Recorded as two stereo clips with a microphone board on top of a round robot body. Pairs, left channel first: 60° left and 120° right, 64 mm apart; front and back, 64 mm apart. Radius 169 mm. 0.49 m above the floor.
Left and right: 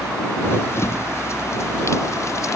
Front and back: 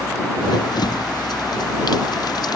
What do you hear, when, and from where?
0.4 s running footsteps: 5° left; by 2.6 s 15° left